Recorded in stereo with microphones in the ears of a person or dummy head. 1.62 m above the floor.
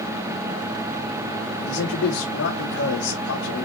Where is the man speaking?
90° left, 4 m.